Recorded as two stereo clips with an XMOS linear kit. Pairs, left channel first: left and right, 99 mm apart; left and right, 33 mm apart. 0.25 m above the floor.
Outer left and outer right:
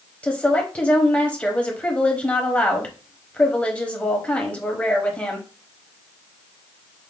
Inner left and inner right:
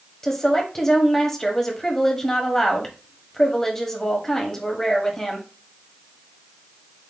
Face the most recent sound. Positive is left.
turn(degrees=10)  # may be behind; listen again after turning